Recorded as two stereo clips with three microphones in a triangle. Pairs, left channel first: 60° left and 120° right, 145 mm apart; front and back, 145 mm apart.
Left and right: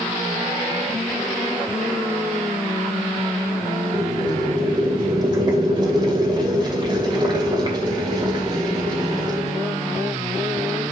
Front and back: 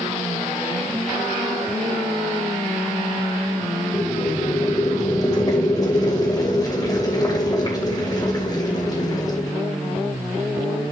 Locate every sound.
3.9 s boiling: 60° right, 2.5 m